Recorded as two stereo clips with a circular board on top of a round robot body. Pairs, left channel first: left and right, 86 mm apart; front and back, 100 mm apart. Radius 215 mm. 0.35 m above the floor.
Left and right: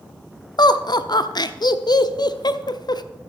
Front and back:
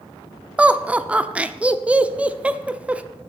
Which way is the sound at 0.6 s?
105° left.